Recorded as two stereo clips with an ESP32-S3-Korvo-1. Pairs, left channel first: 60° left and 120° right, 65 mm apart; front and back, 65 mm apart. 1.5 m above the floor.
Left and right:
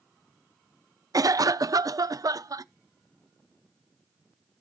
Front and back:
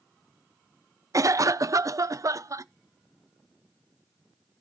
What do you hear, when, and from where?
1.1 s a cough: 145° right, 0.7 m